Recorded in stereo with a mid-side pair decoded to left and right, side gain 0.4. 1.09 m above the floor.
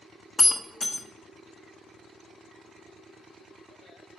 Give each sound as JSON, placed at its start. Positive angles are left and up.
{"t": 0.4, "sound": "breaking glass", "azimuth_deg": 35, "distance_m": 1.1}